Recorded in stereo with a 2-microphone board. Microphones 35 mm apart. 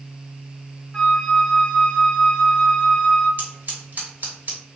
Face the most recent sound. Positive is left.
turn(degrees=-60)  # may be behind; listen again after turning